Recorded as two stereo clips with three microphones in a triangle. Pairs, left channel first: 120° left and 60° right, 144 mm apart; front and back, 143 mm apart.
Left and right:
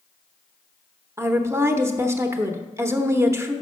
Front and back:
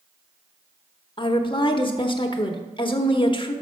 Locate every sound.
1.2 s a woman speaking: 5° right, 0.8 m